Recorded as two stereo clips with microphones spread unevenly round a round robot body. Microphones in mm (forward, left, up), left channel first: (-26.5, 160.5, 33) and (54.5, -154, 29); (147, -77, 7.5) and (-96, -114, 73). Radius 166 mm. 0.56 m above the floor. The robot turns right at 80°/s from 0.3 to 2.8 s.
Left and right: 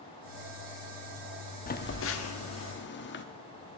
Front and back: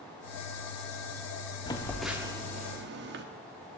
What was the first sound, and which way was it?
A phone buzzing, 50° left.